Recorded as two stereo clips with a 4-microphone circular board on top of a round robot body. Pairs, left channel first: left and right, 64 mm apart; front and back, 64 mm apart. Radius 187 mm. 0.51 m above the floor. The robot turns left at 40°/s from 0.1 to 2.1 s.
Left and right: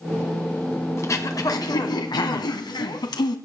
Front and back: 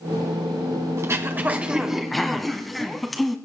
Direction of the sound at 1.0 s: 135° left.